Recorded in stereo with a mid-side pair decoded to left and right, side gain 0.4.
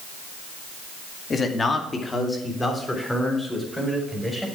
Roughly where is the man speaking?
Ahead left.